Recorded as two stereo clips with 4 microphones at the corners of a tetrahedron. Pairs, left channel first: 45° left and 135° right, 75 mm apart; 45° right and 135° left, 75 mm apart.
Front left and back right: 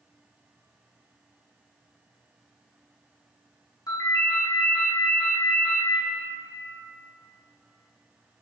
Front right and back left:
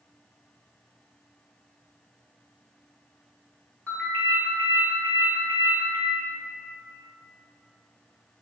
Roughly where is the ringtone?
Ahead.